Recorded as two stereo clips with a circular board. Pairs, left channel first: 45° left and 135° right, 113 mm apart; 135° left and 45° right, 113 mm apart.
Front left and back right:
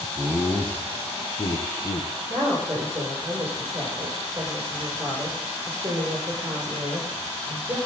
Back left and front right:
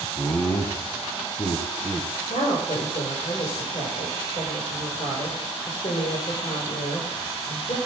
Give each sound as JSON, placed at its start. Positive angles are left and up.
{"t": 0.2, "sound": "laughter", "azimuth_deg": -175, "distance_m": 1.0}
{"t": 2.3, "sound": "a woman speaking", "azimuth_deg": 160, "distance_m": 6.0}